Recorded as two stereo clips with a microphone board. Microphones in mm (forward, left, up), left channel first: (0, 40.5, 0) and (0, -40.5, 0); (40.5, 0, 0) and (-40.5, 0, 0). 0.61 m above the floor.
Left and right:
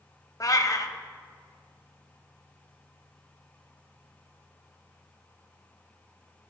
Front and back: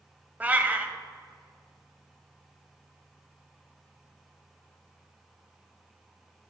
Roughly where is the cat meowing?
Behind left.